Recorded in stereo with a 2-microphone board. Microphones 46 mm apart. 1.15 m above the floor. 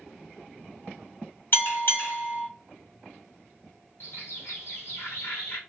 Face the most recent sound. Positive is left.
turn(degrees=60)  # may be behind; listen again after turning